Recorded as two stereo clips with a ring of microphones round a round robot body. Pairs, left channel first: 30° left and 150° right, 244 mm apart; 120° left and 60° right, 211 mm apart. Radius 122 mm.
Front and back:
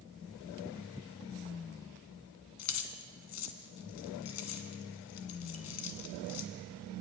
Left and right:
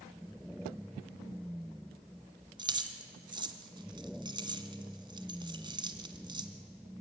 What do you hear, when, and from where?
2.6 s keys jangling: 10° left, 1.7 m